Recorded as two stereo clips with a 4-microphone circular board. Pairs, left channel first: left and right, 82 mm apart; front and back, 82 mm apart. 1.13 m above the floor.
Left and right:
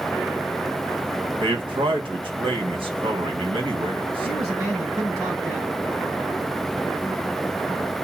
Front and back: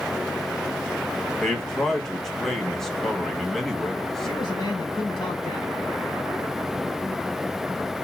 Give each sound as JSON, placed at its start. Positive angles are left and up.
{"t": 1.4, "sound": "a man speaking", "azimuth_deg": -85, "distance_m": 1.2}
{"t": 4.2, "sound": "a man speaking", "azimuth_deg": -40, "distance_m": 4.5}